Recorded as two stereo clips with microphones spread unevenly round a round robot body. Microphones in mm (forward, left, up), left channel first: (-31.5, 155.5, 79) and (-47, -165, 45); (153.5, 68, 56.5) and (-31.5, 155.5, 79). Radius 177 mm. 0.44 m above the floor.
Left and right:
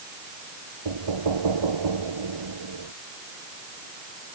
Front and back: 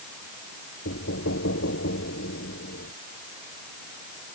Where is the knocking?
75° right.